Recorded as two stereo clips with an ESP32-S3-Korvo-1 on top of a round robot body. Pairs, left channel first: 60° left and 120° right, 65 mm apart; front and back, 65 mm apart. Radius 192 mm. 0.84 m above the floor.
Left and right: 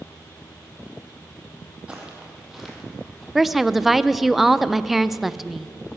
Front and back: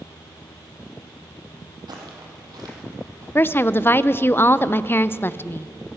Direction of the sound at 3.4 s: 35° right.